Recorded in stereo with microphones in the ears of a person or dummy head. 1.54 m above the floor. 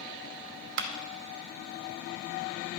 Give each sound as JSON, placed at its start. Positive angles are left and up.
{"t": 0.8, "sound": "a clap", "side_deg": -60, "distance_m": 0.9}